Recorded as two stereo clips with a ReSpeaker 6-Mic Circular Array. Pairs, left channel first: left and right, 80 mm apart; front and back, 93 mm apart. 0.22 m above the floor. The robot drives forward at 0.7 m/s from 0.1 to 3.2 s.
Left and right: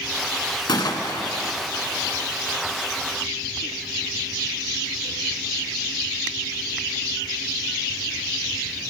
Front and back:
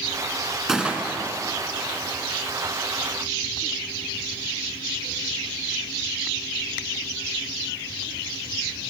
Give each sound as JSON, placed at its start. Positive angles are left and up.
{"t": 0.7, "sound": "a gunshot", "azimuth_deg": 95, "distance_m": 1.1}